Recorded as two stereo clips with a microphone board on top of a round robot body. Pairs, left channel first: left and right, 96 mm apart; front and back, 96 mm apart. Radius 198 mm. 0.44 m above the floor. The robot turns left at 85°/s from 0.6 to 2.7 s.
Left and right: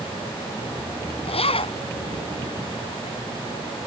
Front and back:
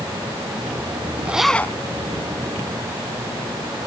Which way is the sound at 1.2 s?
105° left.